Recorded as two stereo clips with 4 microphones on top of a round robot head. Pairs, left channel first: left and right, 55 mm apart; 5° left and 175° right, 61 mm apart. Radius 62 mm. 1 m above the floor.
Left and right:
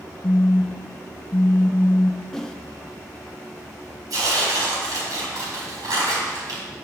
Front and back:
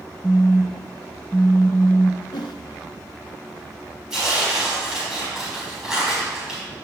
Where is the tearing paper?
90° right, 4 m.